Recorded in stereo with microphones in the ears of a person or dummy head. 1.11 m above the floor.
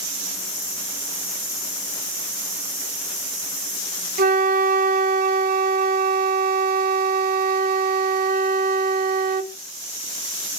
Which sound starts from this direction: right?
A flute, at 4.2 s.